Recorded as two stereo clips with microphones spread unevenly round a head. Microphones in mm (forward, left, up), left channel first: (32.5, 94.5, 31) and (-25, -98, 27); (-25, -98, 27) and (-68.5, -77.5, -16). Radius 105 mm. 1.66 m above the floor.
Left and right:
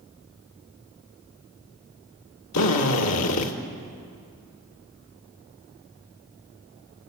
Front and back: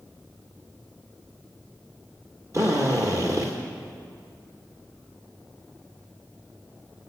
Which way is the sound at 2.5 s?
75° left.